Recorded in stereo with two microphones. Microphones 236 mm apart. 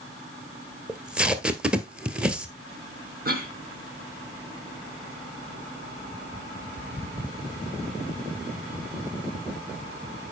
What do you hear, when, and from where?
0.9 s tape being pulled: 5° right (ahead or behind), 1.1 m
3.2 s a cough: 40° right (ahead or behind), 3.5 m